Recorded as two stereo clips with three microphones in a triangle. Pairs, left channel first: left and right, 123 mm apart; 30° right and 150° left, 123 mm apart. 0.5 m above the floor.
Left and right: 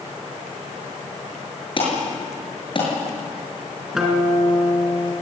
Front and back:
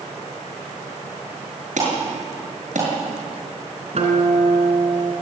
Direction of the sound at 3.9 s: 175° right.